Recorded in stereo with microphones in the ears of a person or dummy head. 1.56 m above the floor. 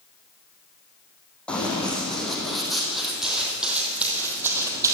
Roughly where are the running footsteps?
Centre.